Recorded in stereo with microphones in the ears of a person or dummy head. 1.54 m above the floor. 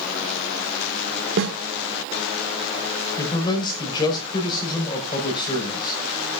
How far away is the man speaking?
About 5.5 m.